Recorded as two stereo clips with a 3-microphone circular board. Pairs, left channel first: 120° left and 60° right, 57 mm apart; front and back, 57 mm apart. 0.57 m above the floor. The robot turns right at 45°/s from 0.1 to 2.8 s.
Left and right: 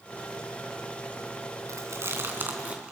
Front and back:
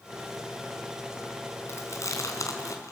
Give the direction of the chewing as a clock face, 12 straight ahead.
1 o'clock.